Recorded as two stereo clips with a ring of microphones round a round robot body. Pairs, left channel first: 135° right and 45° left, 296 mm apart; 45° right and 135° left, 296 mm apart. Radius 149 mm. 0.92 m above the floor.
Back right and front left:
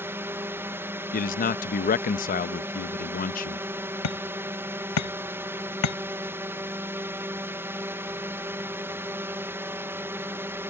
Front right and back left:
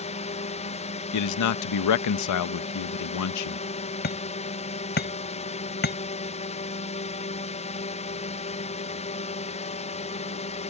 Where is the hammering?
105° right.